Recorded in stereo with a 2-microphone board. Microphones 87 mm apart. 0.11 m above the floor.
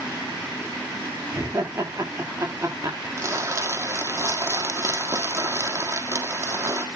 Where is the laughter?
35° right (ahead or behind), 10 m.